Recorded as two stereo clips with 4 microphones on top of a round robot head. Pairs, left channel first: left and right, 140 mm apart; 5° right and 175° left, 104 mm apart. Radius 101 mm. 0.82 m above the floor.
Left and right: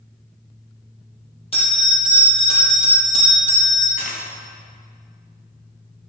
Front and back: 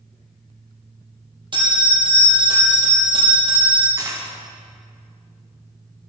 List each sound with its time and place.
1.5 s a bell: 135° left, 4.5 m
4.0 s a dropped coin: 120° left, 3.5 m